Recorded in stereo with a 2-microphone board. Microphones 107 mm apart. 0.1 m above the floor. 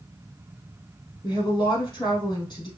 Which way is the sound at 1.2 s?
40° left (ahead or behind).